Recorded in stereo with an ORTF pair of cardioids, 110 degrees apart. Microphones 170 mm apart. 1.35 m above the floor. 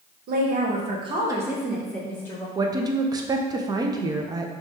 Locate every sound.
0.3 s a woman speaking: 65° right, 1.0 m; by 2.5 s 20° left, 1.3 m
2.5 s a woman speaking: 25° right, 0.5 m